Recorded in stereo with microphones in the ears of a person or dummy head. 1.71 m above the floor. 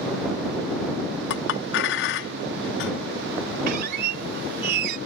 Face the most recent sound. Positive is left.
turn(degrees=-50)  # may be behind; listen again after turning